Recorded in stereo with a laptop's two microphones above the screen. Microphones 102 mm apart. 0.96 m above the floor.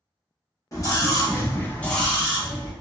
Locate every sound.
0.7 s a scream: 35° left (ahead or behind), 1.0 m; by 2.7 s 15° right (ahead or behind), 1.0 m